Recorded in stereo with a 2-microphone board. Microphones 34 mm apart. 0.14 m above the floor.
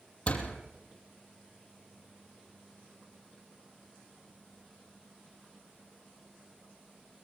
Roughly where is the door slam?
Left.